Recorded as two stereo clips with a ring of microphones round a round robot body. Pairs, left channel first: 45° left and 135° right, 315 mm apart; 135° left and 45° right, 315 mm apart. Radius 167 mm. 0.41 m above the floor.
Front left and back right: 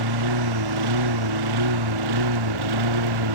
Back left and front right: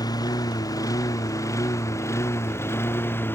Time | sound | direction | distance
0.0 | a lawn mower | 145° right | ?